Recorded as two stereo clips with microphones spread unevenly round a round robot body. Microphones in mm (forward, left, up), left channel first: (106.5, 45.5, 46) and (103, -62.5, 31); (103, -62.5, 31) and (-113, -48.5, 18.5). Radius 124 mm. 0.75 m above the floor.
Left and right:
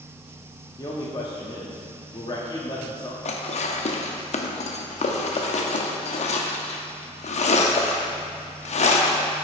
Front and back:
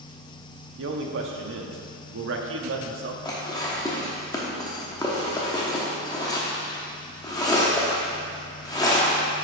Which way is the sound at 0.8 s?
155° left.